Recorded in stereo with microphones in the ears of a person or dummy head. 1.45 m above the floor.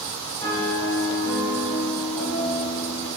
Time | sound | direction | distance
0.4 | a piano | 25° left (ahead or behind) | 1.4 m